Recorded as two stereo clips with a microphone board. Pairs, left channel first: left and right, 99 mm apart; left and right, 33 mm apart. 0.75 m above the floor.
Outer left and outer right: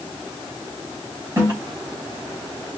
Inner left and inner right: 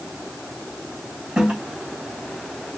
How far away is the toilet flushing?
About 3 m.